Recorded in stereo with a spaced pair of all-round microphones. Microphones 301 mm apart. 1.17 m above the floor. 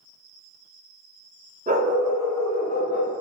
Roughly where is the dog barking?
Right.